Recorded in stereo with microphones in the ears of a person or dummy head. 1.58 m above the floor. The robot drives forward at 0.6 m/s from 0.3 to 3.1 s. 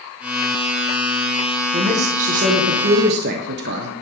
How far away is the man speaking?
About 1.8 m.